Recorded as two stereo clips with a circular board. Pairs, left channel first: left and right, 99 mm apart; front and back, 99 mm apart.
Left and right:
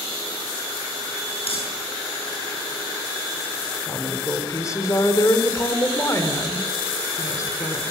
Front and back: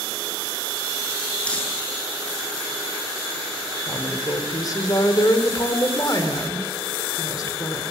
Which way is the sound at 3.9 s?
40° left.